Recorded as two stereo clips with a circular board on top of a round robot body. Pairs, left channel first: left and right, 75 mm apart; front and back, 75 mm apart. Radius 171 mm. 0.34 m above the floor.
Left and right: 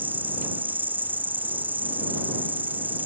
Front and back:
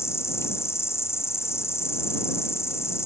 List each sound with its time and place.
0.0 s an insect: 35° right